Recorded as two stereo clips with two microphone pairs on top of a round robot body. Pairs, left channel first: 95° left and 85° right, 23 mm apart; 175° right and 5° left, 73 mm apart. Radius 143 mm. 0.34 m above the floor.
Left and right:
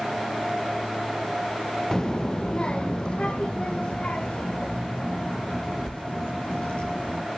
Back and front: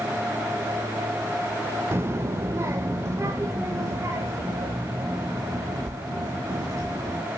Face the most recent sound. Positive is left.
turn(degrees=55)